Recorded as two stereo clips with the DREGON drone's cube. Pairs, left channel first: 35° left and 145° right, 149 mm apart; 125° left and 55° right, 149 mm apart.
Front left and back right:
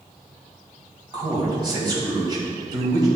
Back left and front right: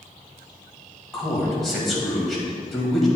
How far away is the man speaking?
About 1.6 m.